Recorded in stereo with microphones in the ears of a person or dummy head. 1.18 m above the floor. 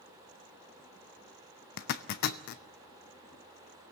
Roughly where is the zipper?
Left.